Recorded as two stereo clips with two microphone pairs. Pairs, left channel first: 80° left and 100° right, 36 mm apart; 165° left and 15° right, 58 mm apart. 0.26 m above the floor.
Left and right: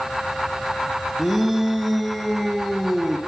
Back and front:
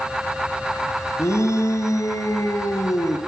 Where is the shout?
165° left, 3 m.